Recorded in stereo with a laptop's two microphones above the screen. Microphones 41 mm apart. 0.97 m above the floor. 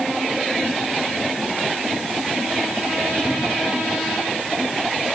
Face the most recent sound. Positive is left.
No sound to turn to.